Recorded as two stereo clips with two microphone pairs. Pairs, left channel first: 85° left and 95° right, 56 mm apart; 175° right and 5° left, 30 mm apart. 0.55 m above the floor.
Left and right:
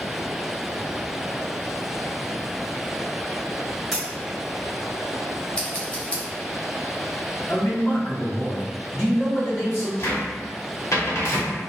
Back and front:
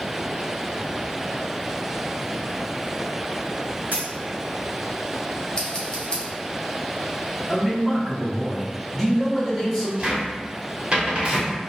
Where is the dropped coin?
5° right, 0.8 m.